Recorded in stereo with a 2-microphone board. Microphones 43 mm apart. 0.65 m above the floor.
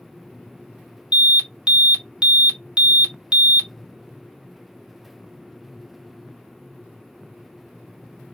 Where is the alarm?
20° right (ahead or behind), 1.2 m.